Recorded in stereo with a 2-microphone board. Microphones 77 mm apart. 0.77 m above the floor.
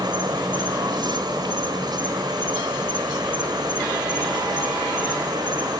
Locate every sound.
0.0 s an insect: 70° right (ahead or behind), 1.8 m